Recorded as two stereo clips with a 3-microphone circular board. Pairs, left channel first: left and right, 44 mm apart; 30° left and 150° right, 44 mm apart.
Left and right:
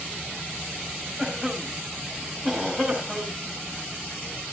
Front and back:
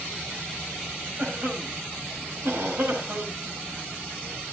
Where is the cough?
175° right, 5 m.